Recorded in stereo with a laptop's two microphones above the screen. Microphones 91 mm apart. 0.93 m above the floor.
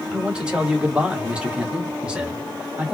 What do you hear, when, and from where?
0.1 s a man speaking: 10° right (ahead or behind), 1.1 m